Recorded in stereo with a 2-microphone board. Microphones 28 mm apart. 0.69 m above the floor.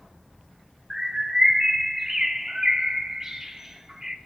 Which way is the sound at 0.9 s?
15° right (ahead or behind).